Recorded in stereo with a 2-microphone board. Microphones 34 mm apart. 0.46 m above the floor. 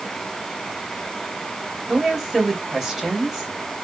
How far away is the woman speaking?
About 2.5 m.